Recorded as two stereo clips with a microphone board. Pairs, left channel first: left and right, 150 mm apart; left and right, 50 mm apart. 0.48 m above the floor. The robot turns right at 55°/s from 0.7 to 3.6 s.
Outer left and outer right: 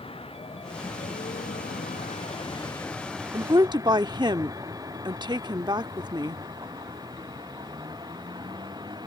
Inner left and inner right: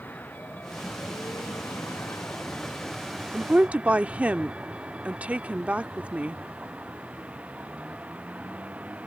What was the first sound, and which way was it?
A vehicle, 40° left (ahead or behind).